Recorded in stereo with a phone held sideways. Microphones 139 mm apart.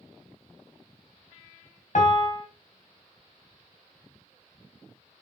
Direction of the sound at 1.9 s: 60° left (ahead or behind).